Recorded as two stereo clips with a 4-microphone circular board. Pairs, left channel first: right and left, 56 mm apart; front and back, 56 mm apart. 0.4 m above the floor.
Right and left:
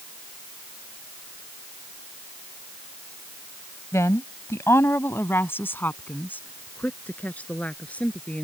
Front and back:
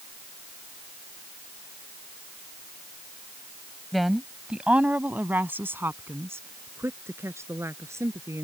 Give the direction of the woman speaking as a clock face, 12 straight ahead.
3 o'clock.